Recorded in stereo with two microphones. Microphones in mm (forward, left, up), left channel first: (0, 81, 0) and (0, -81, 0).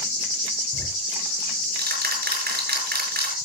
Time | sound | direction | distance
0.7 | ticking | 85° right | 6 m